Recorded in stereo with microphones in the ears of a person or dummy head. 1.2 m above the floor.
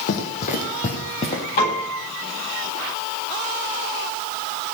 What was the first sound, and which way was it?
Running footsteps, 50° left (ahead or behind).